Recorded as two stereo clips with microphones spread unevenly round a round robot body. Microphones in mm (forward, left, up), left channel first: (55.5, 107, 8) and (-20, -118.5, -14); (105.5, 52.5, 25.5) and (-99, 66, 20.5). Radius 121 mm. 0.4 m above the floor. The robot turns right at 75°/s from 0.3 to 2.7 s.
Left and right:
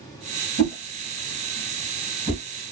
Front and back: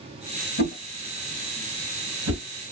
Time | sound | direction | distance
0.6 | a whoosh | 40° left | 1.4 m